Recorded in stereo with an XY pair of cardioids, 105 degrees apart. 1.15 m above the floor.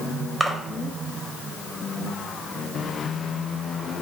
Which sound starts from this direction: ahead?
A splash, at 0.4 s.